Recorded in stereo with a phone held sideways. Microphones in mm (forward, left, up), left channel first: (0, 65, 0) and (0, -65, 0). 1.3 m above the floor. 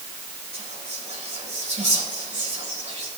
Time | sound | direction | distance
0.5 | whispering | 55° right (ahead or behind) | 5 m